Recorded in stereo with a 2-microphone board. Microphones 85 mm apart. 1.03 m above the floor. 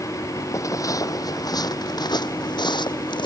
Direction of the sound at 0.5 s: 40° left (ahead or behind).